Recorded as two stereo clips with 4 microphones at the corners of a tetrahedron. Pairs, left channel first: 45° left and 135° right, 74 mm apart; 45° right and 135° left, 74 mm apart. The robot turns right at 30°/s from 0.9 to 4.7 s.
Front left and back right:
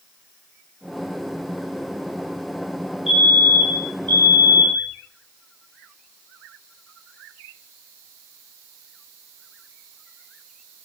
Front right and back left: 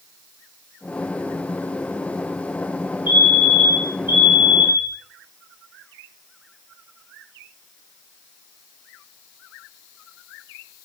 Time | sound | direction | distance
3.1 | a fire alarm | 50° right | 9 m